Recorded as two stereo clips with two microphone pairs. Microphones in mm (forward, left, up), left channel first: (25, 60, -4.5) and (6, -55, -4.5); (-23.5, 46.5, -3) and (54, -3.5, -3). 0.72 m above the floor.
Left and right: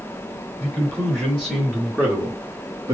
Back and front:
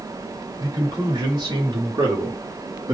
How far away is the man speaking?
About 1.9 m.